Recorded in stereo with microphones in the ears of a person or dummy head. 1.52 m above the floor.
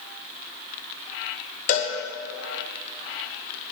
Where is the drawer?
No drawer in this recording.